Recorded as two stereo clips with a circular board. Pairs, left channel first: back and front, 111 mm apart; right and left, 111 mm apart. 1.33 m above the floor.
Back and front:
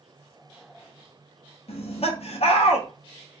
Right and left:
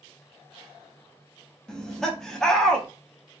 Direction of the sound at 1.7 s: 175° right.